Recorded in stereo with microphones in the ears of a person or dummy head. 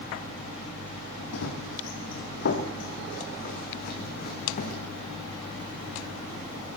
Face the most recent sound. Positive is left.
turn(degrees=40)  # may be behind; listen again after turning